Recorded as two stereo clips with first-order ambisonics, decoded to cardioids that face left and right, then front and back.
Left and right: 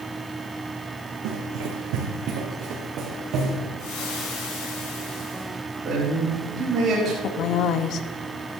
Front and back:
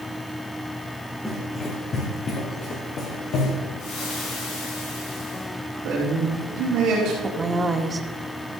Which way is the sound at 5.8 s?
150° right.